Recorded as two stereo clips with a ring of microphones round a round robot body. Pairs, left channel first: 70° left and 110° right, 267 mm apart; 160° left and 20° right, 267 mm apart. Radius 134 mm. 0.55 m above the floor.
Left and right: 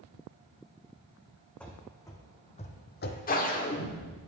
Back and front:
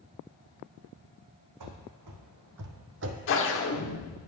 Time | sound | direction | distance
1.6 | running footsteps | 20° right | 1.5 m
3.3 | a whoosh | 120° left | 1.1 m